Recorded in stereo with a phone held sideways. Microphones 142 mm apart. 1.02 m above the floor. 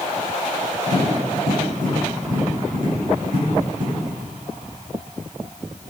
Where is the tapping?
65° right (ahead or behind), 7.5 m.